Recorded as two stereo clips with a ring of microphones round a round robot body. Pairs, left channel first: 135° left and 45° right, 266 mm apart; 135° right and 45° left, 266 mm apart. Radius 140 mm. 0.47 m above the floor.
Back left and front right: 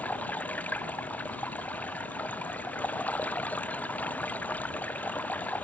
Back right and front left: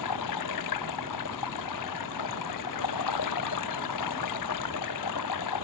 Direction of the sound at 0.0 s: 140° right.